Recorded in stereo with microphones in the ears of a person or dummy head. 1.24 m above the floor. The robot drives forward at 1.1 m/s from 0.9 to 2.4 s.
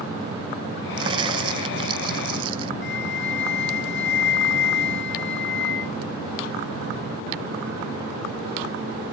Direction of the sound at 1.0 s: 20° right (ahead or behind).